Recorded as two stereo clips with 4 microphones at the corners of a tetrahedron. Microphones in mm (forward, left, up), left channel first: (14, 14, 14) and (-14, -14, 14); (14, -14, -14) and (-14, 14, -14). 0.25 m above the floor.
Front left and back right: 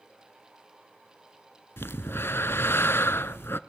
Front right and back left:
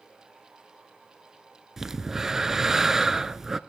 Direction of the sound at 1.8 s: 60° left.